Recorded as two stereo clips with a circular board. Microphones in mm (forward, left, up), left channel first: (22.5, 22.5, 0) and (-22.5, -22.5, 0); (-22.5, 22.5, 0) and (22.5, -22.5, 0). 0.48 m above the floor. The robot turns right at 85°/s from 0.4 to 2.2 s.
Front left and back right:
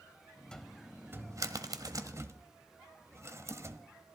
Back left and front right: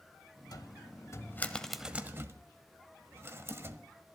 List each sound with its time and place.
0.5 s a cupboard door: 120° left, 1.1 m; by 3.8 s 95° right, 1.1 m